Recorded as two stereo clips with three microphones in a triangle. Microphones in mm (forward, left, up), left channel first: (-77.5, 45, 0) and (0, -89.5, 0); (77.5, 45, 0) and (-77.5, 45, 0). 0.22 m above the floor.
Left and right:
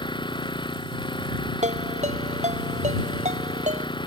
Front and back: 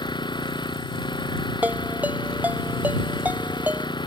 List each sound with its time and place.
0.0 s an engine running: 60° left
1.6 s a ringtone: 100° right